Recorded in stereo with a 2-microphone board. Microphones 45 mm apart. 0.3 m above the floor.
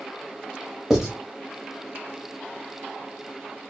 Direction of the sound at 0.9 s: 10° right (ahead or behind).